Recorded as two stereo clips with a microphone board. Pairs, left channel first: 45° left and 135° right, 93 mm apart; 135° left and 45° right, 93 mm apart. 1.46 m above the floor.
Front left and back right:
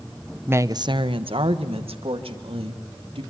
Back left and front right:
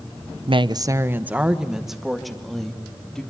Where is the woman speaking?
65° right, 0.7 m; by 3.2 s 140° right, 3.5 m.